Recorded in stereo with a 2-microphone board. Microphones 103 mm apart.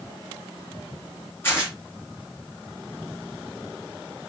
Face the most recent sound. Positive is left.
turn(degrees=20)  # may be behind; listen again after turning